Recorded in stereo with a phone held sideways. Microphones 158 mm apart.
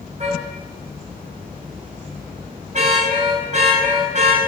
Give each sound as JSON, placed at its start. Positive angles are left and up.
{"t": 0.2, "sound": "a car horn", "side_deg": -50, "distance_m": 5.0}